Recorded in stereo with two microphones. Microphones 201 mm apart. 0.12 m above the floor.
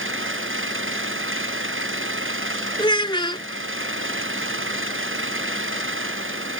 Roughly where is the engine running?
Right.